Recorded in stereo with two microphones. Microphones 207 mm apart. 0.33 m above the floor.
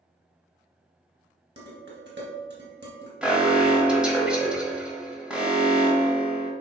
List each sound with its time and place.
1.6 s dishes clattering: 60° right (ahead or behind), 2.5 m
3.2 s an alarm: 5° right (ahead or behind), 1.4 m